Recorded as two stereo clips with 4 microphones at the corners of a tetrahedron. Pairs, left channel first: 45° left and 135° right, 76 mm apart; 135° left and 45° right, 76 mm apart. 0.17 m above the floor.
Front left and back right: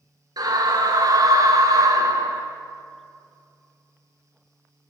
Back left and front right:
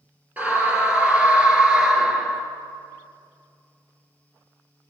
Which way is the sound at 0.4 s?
115° right.